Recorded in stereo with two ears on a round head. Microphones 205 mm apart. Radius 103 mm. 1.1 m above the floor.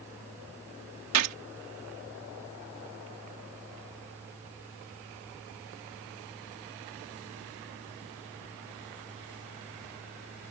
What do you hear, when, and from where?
1.1 s a gunshot: 80° right